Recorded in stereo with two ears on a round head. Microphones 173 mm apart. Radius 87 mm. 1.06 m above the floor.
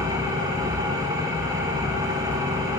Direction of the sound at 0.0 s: 15° right (ahead or behind).